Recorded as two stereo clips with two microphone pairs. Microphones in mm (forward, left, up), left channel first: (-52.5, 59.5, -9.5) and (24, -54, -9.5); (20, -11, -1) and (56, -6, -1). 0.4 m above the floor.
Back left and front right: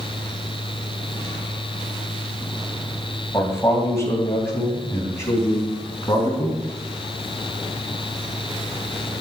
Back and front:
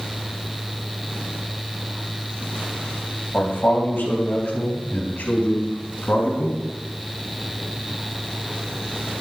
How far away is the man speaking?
About 2.5 m.